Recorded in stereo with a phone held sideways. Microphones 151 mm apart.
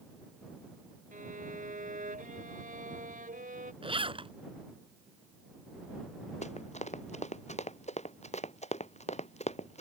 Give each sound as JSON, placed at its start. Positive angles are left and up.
{"t": 1.1, "sound": "a violin", "side_deg": -60}
{"t": 3.8, "sound": "a zipper", "side_deg": -35}
{"t": 6.4, "sound": "running footsteps", "side_deg": 45}